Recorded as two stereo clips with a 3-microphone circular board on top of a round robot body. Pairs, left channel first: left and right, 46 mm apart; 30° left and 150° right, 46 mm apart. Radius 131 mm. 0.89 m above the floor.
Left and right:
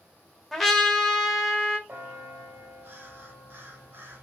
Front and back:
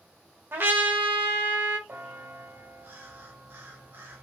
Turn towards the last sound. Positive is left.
turn(degrees=-120)